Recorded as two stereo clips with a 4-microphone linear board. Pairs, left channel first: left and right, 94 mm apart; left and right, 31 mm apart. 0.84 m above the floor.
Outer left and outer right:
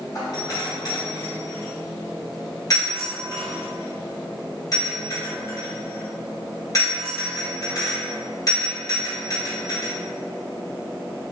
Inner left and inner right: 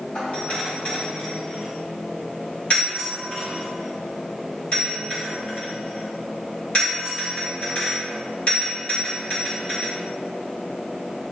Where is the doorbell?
35° left (ahead or behind), 1.7 m.